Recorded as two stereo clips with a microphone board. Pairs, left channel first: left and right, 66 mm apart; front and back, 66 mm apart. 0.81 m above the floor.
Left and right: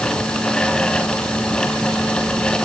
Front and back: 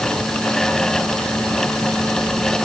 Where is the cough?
I don't hear a cough.